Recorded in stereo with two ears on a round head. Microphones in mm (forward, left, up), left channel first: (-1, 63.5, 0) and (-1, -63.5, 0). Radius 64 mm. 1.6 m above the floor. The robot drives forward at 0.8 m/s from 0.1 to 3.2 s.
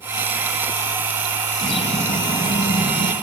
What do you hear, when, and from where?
1.6 s a bird: 40° left (ahead or behind), 3 m; by 3.1 s 65° left (ahead or behind), 2 m